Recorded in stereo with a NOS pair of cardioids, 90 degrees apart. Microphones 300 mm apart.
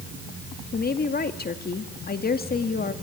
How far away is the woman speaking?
About 2 m.